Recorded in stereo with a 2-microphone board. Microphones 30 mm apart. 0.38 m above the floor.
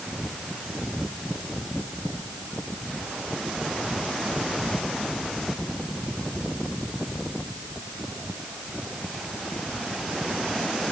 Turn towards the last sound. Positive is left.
No sound to turn to.